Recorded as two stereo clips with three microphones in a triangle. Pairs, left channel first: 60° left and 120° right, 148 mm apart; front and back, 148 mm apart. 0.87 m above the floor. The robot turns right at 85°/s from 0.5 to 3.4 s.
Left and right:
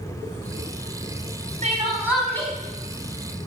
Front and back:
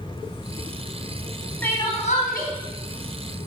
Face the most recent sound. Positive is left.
turn(degrees=70)